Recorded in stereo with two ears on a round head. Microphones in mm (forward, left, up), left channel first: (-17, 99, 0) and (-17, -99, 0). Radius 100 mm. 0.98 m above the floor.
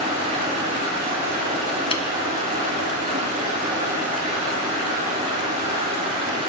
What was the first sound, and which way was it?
Running water, 30° right (ahead or behind).